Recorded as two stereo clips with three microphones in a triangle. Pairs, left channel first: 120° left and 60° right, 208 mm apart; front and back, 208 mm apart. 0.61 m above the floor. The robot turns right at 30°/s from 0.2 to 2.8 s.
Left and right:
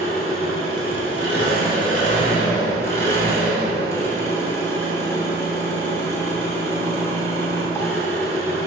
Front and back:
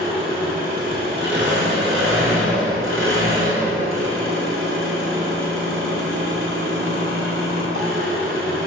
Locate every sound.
0.0 s an engine running: 120° left, 1.0 m; by 8.7 s 165° right, 1.0 m